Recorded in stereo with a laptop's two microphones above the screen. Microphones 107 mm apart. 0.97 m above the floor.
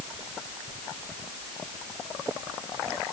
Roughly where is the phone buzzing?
I don't hear a phone buzzing.